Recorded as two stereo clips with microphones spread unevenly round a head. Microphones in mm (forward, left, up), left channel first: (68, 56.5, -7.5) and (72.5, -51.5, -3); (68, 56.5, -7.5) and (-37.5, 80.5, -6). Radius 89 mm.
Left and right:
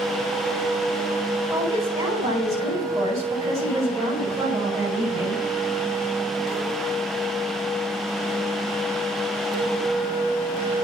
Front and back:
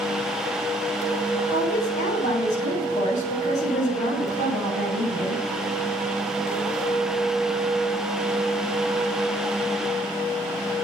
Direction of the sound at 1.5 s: 30° right.